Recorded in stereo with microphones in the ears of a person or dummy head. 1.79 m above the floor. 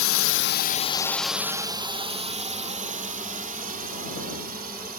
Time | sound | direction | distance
0.0 | a drone | 70° left (ahead or behind) | ?